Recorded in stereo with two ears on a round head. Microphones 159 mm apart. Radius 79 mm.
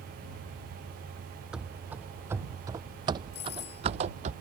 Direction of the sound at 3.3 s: 70° left (ahead or behind).